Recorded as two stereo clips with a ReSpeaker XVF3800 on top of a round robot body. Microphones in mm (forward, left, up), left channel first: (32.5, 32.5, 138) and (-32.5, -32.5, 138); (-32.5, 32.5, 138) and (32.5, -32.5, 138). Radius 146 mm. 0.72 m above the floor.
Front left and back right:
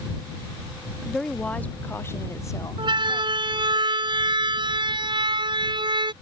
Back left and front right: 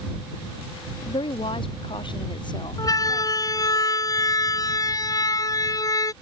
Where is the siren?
175° right.